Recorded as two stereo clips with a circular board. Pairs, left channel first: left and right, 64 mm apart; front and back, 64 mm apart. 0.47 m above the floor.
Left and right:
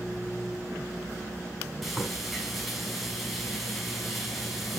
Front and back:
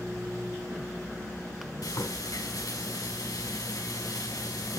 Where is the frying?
Straight ahead, 5 m.